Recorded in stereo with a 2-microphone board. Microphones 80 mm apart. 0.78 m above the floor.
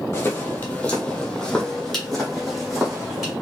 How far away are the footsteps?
About 0.9 m.